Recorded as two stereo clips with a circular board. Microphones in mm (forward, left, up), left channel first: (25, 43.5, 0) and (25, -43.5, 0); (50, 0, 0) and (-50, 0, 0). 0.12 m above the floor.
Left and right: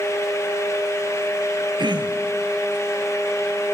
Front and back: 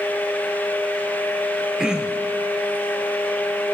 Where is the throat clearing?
100° right, 1.0 m.